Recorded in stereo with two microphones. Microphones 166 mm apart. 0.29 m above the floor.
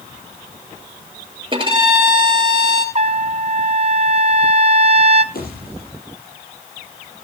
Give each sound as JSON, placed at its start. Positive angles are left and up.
{"t": 1.5, "sound": "a violin", "side_deg": -30, "distance_m": 2.0}
{"t": 3.0, "sound": "a trumpet", "side_deg": -40, "distance_m": 0.7}
{"t": 5.3, "sound": "a pop", "side_deg": 65, "distance_m": 7.0}